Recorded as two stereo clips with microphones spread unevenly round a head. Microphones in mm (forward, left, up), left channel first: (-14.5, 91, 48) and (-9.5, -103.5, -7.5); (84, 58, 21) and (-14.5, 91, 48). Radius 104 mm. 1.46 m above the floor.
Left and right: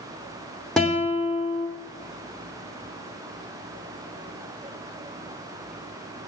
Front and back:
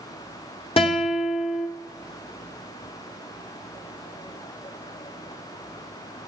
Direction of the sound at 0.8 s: 15° left.